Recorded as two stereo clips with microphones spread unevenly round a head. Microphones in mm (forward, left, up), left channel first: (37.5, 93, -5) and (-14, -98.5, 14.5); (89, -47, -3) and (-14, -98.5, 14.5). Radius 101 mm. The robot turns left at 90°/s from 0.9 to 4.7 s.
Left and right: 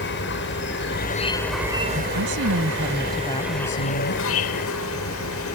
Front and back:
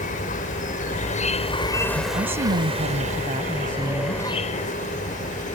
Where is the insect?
45° left; by 5.6 s 60° left.